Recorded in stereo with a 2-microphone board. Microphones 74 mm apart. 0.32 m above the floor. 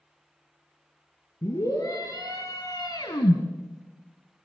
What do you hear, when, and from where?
1.4 s a scream: 45° left (ahead or behind), 4 m; by 3.4 s 65° left (ahead or behind), 2.5 m